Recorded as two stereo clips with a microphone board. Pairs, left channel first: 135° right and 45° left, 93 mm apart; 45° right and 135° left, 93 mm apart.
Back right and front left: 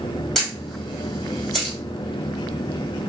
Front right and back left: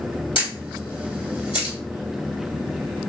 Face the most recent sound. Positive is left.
turn(degrees=-45)